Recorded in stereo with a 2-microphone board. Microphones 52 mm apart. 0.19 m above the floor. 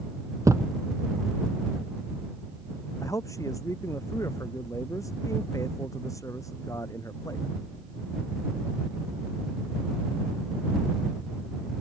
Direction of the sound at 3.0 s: 80° left.